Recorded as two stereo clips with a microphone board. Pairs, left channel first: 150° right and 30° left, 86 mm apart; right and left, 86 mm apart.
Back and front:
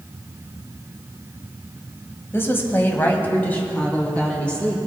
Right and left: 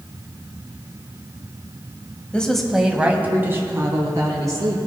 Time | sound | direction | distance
2.3 | a woman speaking | 150° right | 1.1 m